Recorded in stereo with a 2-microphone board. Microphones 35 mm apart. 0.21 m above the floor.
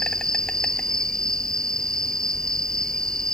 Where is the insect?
25° left (ahead or behind).